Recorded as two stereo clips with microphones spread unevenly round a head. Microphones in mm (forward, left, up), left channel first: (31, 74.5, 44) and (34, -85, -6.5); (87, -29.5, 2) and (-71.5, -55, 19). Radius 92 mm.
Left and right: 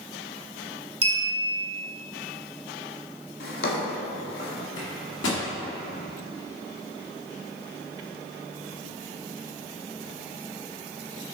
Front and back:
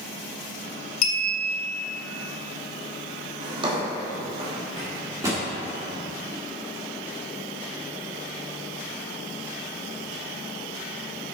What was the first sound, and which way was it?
A clink, 30° right.